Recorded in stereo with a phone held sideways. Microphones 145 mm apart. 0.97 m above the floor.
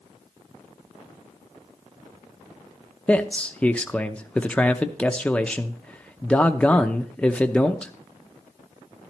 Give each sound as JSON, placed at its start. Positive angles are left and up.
{"t": 3.1, "sound": "a man speaking", "side_deg": 10, "distance_m": 0.6}